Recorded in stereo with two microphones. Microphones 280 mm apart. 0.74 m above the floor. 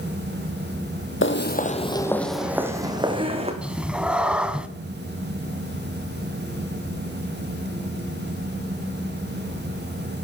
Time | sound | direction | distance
1.2 | footsteps | 45° left (ahead or behind) | 1.0 m
3.6 | a cat meowing | 5° right (ahead or behind) | 0.7 m